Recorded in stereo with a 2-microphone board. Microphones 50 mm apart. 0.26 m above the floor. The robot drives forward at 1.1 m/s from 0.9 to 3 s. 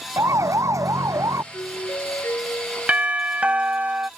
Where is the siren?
80° right; by 1.4 s 85° right.